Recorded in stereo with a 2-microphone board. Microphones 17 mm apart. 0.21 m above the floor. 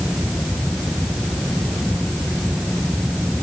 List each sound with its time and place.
Only background noise.